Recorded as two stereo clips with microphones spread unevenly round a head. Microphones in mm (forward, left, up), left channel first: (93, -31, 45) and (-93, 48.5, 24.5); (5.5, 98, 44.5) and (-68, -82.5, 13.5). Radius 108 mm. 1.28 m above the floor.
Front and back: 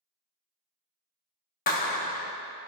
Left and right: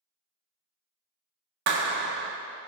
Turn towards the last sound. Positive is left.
turn(degrees=-75)